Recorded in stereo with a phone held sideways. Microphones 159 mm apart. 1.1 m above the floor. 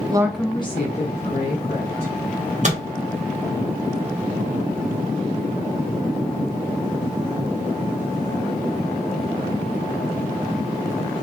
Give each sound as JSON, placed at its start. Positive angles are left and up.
{"t": 0.1, "sound": "a woman speaking", "side_deg": -25, "distance_m": 0.7}
{"t": 2.6, "sound": "a microwave", "side_deg": -50, "distance_m": 0.9}